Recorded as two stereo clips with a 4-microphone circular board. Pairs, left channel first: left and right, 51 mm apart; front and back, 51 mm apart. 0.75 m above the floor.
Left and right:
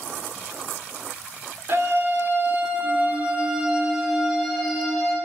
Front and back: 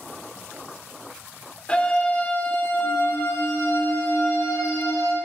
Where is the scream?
60° right, 2.5 m; by 5.2 s straight ahead, 3.5 m.